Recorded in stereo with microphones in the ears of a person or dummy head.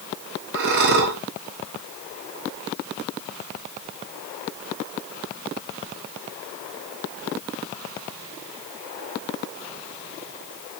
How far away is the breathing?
About 1.0 m.